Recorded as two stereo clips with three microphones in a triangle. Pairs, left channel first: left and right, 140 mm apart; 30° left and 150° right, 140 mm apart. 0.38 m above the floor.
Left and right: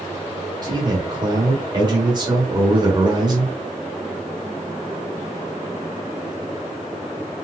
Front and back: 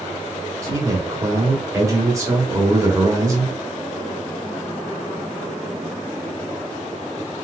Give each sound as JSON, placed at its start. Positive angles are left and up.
{"t": 0.6, "sound": "a man speaking", "azimuth_deg": -105, "distance_m": 1.2}